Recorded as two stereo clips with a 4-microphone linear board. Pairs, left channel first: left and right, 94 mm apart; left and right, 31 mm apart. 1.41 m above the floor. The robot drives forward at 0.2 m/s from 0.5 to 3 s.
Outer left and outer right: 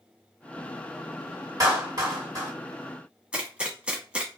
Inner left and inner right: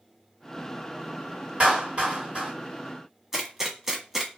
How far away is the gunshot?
About 0.8 m.